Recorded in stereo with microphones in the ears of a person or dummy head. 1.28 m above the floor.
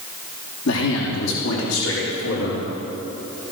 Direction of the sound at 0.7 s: 70° left (ahead or behind).